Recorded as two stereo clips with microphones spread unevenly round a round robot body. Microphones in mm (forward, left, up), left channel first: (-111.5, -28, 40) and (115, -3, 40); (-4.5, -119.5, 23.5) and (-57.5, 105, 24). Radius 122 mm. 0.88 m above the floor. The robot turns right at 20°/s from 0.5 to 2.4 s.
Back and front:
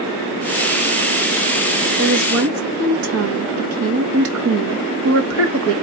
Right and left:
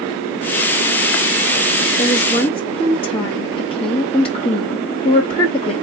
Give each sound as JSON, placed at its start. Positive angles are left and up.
{"t": 2.0, "sound": "a woman speaking", "azimuth_deg": -20, "distance_m": 1.6}